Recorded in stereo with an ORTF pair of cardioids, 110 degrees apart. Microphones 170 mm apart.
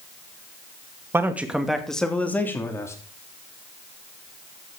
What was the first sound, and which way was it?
A man speaking, 15° right.